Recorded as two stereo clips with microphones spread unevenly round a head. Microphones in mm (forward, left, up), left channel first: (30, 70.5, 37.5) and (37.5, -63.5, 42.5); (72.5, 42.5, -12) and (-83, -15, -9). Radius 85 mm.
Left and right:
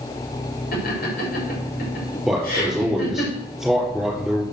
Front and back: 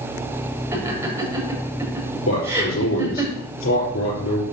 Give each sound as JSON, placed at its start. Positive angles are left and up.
{"t": 0.7, "sound": "laughter", "azimuth_deg": 125, "distance_m": 6.0}
{"t": 2.3, "sound": "a man speaking", "azimuth_deg": 0, "distance_m": 4.5}